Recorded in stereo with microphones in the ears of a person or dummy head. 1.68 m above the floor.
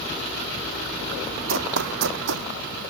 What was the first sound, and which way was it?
Running footsteps, 65° right (ahead or behind).